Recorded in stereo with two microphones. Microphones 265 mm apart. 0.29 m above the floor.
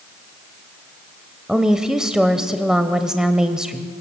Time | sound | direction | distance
1.5 | a woman speaking | centre (ahead or behind) | 0.9 m